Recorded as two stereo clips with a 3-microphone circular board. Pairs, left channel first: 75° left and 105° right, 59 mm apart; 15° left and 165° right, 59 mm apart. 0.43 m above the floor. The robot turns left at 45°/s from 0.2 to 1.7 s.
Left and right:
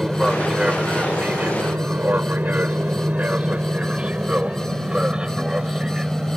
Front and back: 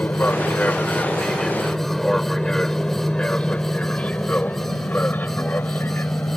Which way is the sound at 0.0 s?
25° right.